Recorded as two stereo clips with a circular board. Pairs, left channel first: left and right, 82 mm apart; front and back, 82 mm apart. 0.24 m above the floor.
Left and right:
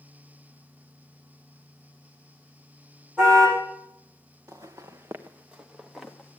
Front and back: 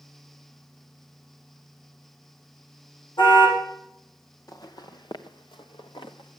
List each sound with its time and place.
3.2 s a car horn: 10° right, 8 m
4.5 s footsteps: 45° right, 1.6 m; by 6.4 s 10° left, 1.8 m